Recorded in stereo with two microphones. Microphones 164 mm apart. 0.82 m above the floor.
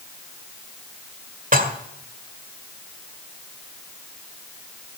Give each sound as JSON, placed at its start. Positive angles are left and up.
{"t": 1.5, "sound": "dishes clattering", "side_deg": -55, "distance_m": 1.9}